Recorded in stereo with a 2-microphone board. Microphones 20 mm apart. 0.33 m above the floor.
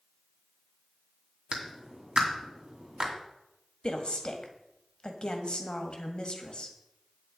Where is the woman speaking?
50° left (ahead or behind), 1.6 m.